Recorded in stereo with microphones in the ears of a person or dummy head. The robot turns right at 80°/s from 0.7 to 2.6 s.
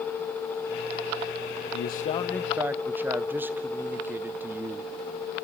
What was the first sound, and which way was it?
A man speaking, 125° left.